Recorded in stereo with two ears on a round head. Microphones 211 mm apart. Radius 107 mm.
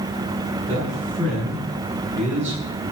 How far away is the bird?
I don't hear a bird.